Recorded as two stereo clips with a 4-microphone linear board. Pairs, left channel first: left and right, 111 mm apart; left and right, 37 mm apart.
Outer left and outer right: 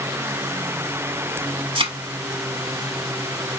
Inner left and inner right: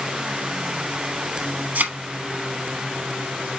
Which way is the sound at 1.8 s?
55° right (ahead or behind).